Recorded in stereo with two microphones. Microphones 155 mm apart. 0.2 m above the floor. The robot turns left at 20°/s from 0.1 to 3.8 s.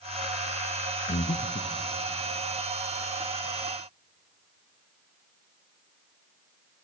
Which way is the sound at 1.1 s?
55° left (ahead or behind).